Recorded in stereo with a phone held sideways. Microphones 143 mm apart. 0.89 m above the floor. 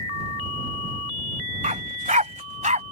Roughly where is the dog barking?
Right.